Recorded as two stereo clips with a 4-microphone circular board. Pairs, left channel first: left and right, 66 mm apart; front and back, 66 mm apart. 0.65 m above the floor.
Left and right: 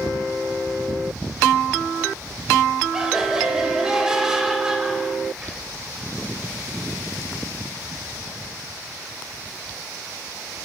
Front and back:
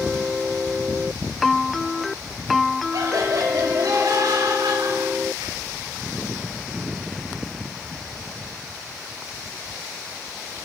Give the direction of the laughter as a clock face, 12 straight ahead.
6 o'clock.